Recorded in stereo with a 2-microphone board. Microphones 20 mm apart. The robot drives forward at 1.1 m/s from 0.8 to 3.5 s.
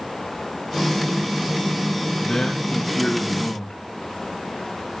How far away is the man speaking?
About 7.5 m.